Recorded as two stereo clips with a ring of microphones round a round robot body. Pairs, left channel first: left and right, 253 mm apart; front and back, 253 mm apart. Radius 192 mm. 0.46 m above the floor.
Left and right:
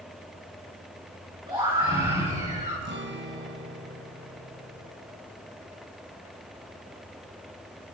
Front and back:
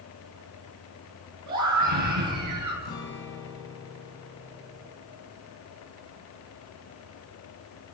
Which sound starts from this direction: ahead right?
A guitar, at 2.8 s.